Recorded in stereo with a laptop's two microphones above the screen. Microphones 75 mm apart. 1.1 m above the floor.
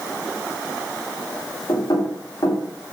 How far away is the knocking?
About 2.5 m.